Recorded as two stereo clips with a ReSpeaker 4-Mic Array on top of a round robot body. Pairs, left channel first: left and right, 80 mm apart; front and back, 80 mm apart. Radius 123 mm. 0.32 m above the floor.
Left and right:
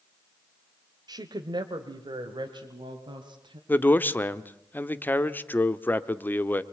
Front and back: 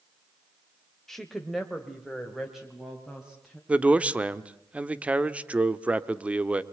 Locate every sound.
1.1 s a woman speaking: 85° right, 1.4 m; by 3.6 s 95° right, 3 m
3.7 s a man speaking: 125° left, 1.2 m